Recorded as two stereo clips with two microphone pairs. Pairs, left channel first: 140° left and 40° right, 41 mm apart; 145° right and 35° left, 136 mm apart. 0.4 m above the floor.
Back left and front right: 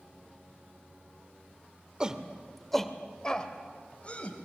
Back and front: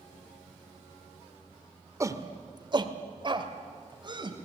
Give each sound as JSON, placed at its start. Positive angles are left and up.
{"t": 2.0, "sound": "a shout", "azimuth_deg": 0, "distance_m": 1.3}